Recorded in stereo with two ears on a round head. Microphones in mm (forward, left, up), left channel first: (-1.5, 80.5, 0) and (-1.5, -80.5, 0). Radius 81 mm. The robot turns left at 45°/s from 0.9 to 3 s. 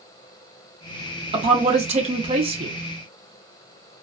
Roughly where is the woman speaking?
Ahead right.